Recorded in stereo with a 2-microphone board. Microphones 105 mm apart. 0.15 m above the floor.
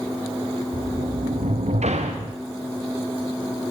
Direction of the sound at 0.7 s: 85° right.